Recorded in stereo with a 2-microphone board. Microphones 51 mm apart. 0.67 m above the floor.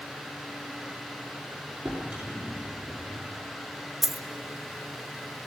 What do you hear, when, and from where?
1.9 s a drawer: 25° right (ahead or behind), 6 m
4.0 s a dropped coin: centre (ahead or behind), 1.2 m